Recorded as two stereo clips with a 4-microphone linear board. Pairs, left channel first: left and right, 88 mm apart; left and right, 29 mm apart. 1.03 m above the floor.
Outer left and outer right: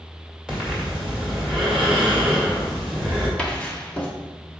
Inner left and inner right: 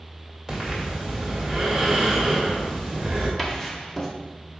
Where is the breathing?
10° right (ahead or behind), 2.5 m.